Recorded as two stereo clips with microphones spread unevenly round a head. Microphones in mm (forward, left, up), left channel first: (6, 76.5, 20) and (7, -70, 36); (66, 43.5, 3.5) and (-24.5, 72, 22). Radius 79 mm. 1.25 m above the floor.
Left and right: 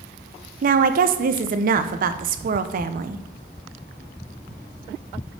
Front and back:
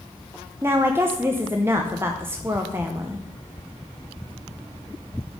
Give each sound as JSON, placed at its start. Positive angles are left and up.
{"t": 0.6, "sound": "a woman speaking", "azimuth_deg": -120, "distance_m": 0.7}